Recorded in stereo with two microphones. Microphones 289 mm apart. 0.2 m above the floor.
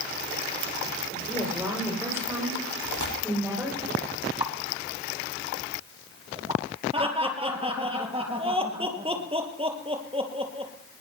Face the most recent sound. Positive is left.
turn(degrees=-20)  # may be behind; listen again after turning